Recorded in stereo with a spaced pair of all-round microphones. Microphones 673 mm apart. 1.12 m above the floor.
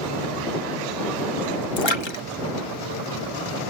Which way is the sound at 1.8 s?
45° left (ahead or behind).